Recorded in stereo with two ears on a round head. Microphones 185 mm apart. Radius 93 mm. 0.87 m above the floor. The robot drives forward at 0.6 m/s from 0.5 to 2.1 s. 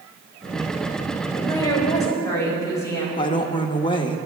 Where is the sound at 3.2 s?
25° left (ahead or behind), 1.0 m.